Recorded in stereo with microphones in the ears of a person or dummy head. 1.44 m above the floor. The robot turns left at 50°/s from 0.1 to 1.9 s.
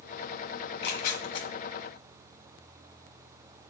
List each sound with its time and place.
0.6 s tearing paper: 70° left (ahead or behind), 1.0 m; by 1.5 s 25° left (ahead or behind), 1.0 m